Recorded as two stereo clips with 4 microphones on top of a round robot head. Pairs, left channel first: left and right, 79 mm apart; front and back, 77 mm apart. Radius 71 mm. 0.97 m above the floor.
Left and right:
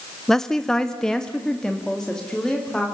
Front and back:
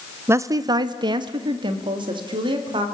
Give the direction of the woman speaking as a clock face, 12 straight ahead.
6 o'clock.